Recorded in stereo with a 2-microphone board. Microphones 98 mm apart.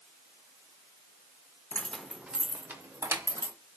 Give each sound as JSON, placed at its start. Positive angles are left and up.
{"t": 1.7, "sound": "keys jangling", "side_deg": 20, "distance_m": 0.5}